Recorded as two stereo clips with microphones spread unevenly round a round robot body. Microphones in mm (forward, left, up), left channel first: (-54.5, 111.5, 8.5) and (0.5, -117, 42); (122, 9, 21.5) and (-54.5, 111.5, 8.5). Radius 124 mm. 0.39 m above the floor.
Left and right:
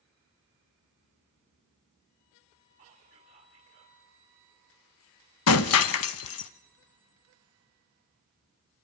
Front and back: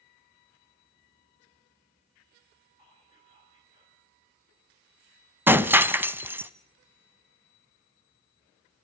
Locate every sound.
2.8 s whispering: 140° right, 2 m
5.5 s breaking glass: 70° left, 0.7 m